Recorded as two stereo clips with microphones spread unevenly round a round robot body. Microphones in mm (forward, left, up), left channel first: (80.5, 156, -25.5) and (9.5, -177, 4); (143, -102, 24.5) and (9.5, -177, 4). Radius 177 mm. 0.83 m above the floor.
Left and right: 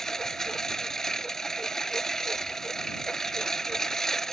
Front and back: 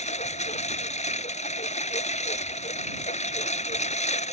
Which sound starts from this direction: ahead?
A lawn mower, at 0.0 s.